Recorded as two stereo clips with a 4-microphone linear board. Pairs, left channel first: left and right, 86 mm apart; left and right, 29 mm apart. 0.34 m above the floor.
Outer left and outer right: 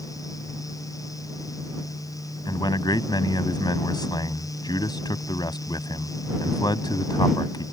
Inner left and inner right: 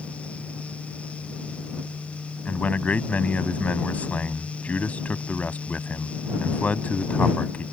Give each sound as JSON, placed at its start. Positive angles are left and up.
{"t": 2.5, "sound": "a man speaking", "side_deg": 55}